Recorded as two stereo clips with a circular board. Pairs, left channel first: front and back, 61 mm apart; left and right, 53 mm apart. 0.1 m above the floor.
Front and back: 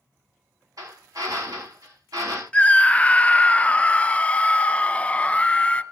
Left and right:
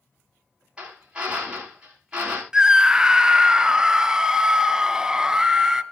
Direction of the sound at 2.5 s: 30° right.